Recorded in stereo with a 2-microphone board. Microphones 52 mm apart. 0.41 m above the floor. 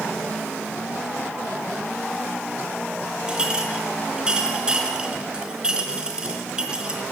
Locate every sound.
3.3 s a clink: 20° right (ahead or behind), 3.5 m